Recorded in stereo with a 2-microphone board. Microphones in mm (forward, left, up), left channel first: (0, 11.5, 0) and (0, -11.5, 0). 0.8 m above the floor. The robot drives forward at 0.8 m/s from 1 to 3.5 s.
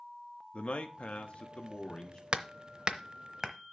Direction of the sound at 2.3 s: 50° right (ahead or behind).